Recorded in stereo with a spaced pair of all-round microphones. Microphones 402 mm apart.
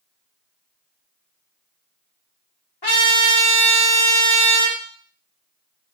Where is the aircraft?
No aircraft in this recording.